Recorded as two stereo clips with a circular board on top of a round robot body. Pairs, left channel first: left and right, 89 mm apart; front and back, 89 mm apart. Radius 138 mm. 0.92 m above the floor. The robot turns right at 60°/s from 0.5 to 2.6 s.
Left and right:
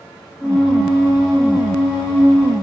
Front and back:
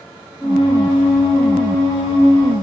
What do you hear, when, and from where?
Only background noise.